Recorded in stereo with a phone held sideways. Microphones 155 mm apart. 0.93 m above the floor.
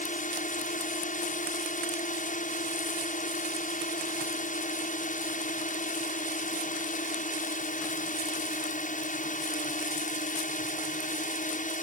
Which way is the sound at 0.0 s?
55° left (ahead or behind).